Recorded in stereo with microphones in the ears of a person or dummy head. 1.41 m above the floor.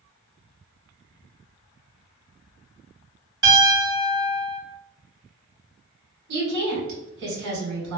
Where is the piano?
25° right (ahead or behind), 1.5 m.